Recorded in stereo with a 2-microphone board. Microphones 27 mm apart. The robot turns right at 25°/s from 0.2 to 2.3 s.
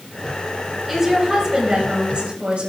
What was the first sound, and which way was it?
A woman speaking, 165° right.